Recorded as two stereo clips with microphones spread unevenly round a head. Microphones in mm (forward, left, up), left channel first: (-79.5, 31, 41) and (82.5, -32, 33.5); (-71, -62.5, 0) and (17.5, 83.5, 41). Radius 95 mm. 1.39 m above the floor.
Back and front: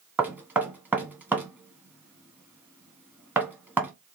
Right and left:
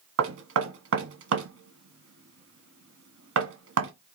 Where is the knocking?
60° left, 0.9 m.